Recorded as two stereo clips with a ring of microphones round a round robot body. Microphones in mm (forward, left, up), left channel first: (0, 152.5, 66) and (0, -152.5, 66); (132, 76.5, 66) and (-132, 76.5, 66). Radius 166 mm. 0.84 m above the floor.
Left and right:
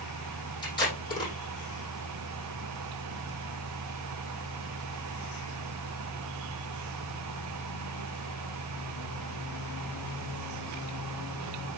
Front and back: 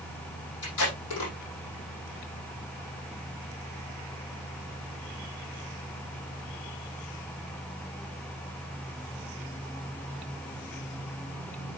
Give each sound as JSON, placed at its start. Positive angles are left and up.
{"t": 0.6, "sound": "tape being pulled", "azimuth_deg": 15, "distance_m": 8.0}